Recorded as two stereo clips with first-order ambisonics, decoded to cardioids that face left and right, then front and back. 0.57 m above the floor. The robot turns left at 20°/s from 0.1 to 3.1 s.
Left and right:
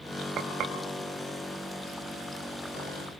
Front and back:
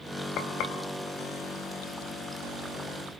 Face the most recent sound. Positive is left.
turn(degrees=-90)